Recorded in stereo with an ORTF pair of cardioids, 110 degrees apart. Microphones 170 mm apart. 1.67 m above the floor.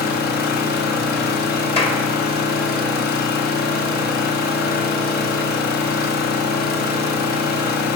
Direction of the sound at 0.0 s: 65° left.